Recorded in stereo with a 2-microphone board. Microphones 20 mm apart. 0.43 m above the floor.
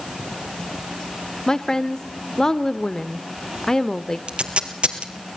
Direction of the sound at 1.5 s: 30° left (ahead or behind).